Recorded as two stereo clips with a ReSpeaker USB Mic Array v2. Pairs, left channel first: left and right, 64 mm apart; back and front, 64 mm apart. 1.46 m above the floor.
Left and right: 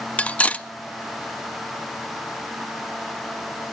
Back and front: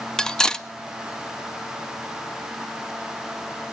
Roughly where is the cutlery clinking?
Behind left.